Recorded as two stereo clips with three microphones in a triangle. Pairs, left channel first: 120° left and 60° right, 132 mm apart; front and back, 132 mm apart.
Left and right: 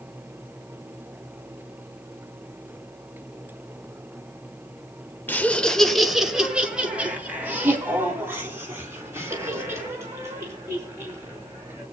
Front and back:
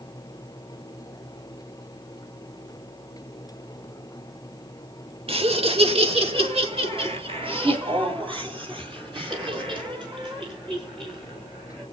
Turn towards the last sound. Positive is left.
turn(degrees=-130)